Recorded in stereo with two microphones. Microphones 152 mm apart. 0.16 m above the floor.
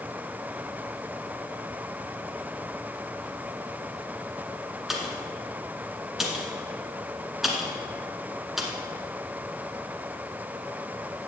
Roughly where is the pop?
Centre.